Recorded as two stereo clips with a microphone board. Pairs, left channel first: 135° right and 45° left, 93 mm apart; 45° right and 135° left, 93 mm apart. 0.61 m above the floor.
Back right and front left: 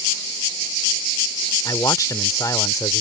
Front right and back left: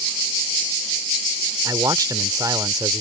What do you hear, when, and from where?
1.6 s a man speaking: straight behind